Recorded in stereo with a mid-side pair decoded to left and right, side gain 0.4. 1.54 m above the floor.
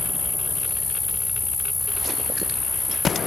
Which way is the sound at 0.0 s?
30° left.